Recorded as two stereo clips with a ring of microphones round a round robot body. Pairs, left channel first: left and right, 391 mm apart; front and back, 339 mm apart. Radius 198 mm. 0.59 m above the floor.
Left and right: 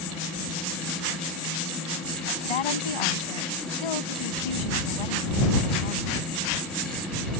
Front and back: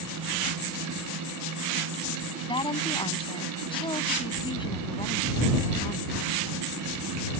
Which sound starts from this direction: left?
A woman speaking, at 2.4 s.